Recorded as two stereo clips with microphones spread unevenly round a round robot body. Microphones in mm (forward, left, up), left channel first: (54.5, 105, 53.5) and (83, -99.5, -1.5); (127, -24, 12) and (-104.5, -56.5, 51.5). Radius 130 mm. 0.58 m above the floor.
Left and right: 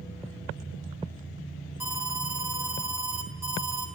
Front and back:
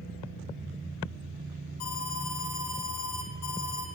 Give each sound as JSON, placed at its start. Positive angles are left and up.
{"t": 1.8, "sound": "an alarm", "azimuth_deg": 0, "distance_m": 4.0}